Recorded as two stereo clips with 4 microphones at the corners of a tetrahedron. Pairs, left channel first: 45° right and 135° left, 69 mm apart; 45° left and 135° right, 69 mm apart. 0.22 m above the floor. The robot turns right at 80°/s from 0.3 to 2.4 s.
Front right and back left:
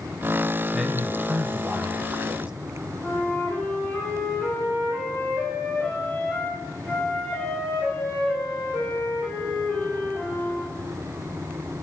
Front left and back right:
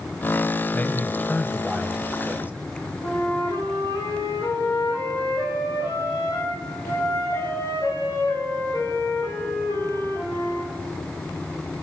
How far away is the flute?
About 9.5 m.